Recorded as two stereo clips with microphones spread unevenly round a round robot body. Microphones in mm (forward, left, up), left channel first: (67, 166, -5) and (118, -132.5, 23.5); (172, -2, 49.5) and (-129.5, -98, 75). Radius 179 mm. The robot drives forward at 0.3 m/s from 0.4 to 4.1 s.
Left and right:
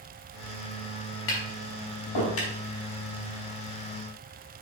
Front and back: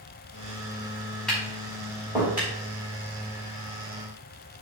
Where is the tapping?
105° left, 3 m; by 2.5 s 110° left, 3 m.